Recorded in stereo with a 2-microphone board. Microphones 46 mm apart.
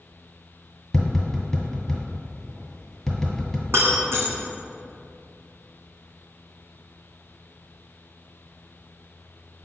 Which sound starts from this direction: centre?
Tapping, at 0.9 s.